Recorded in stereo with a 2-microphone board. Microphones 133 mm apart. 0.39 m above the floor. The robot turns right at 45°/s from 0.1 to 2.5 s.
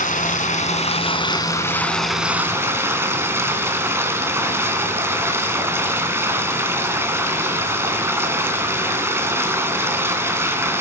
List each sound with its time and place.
0.0 s running water: 90° left, 2.5 m; by 10.8 s 160° right, 2.5 m